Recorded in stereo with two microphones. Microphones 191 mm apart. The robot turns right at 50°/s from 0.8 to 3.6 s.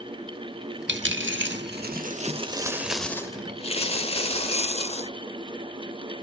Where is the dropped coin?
105° right, 0.8 m; by 5.1 s 30° left, 0.8 m.